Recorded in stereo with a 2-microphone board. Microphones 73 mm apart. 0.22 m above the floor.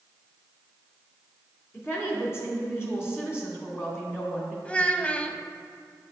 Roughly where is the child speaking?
Centre.